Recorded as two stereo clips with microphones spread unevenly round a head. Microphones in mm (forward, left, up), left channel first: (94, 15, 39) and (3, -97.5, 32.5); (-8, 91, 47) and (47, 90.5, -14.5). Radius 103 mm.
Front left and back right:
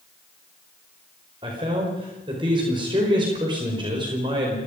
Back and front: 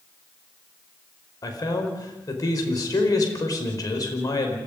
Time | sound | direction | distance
1.4 | a man speaking | 165° left | 5 m